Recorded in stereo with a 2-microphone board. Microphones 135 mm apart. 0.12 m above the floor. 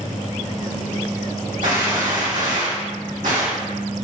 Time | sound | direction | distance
1.6 | a gunshot | 80° right | 1.9 m